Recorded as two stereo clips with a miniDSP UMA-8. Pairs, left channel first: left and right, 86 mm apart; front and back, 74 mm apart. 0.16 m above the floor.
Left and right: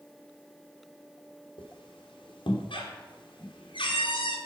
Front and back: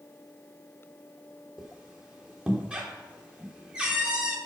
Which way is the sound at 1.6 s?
105° left.